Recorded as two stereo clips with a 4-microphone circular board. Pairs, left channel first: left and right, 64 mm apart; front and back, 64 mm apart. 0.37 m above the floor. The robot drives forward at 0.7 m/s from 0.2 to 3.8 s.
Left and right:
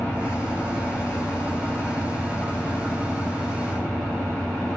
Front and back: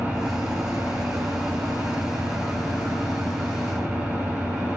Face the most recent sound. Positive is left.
turn(degrees=165)